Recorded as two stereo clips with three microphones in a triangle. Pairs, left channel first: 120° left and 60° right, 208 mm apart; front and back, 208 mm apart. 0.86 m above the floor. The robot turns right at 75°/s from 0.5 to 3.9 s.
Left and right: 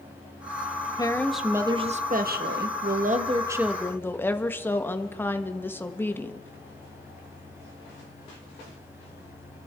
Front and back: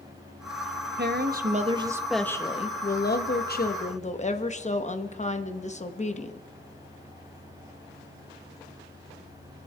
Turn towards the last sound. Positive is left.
turn(degrees=40)